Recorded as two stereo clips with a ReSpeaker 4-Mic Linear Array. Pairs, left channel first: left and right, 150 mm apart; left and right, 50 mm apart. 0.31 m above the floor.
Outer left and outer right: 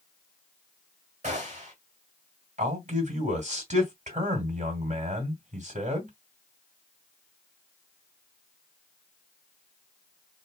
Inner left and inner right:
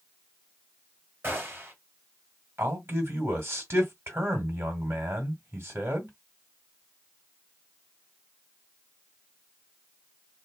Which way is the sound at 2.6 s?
50° right (ahead or behind).